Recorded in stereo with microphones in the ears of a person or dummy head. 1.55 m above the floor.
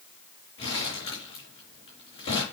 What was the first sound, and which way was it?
Crumpling, 30° left (ahead or behind).